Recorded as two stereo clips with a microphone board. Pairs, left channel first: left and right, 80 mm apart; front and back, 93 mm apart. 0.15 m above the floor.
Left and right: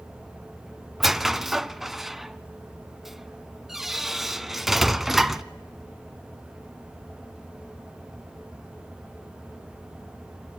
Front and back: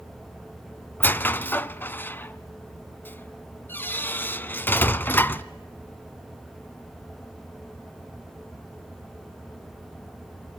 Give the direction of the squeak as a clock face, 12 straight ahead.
12 o'clock.